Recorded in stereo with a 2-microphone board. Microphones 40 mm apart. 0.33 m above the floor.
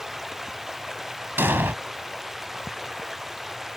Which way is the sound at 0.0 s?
10° right (ahead or behind).